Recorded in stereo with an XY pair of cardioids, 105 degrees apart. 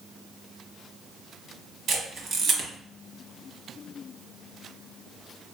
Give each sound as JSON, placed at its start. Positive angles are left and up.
{"t": 1.9, "sound": "a camera shutter", "azimuth_deg": -55, "distance_m": 1.1}